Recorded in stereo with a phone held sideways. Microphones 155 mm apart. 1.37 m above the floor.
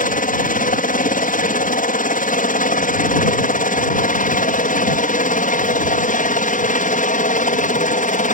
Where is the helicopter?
65° left (ahead or behind); by 8.3 s 60° left (ahead or behind).